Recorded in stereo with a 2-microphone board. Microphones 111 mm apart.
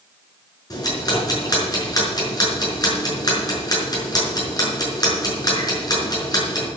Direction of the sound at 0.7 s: 35° left (ahead or behind).